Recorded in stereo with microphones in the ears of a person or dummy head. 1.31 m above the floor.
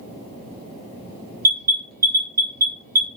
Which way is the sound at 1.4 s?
45° right (ahead or behind).